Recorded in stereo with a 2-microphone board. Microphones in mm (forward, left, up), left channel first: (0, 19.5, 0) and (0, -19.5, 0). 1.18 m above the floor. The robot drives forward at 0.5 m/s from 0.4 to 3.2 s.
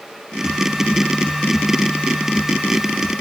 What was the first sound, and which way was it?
Only background noise.